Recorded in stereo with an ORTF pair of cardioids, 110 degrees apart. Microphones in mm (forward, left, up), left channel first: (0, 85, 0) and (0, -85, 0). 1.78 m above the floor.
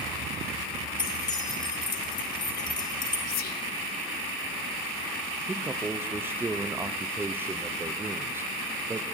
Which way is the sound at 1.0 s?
30° left.